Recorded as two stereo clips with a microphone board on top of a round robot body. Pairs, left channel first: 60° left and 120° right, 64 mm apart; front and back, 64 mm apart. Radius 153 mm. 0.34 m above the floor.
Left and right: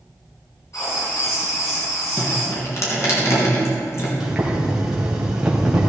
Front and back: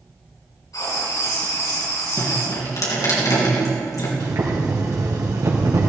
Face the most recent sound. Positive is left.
turn(degrees=160)